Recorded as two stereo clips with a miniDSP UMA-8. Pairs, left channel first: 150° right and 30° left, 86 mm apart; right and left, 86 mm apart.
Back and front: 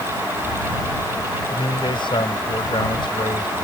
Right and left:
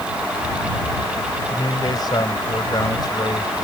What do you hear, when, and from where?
1.5 s a man speaking: 130° right